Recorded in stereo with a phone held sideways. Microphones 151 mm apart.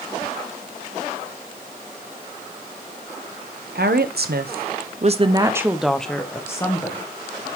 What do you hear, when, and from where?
3.8 s a woman speaking: 85° right, 0.9 m; by 7.1 s 25° left (ahead or behind), 1.2 m